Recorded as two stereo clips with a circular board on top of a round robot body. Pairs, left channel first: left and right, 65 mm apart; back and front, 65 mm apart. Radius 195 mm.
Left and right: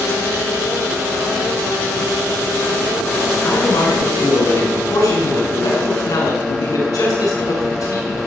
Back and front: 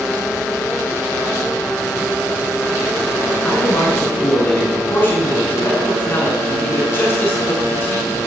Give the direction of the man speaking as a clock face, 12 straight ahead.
8 o'clock.